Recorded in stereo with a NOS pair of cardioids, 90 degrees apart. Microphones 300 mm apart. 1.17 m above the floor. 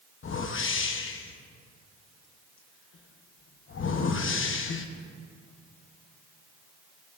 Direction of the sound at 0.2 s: 45° left.